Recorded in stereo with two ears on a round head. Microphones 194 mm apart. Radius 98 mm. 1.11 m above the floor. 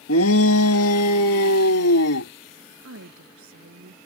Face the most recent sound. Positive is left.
turn(degrees=-65)  # may be behind; listen again after turning